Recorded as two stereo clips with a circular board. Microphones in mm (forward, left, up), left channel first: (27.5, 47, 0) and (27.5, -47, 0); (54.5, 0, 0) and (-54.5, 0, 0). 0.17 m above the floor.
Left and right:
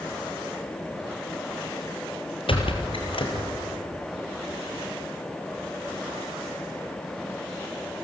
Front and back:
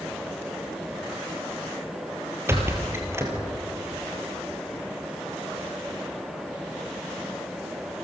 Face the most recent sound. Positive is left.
turn(degrees=115)